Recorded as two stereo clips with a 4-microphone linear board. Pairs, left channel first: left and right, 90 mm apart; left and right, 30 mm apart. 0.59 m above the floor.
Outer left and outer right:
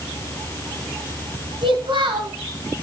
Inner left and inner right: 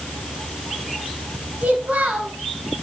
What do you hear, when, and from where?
1.6 s a child speaking: 65° right (ahead or behind), 2.5 m